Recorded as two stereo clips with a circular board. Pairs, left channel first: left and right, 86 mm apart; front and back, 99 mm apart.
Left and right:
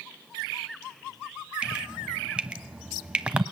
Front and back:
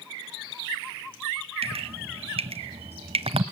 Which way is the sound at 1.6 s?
165° right.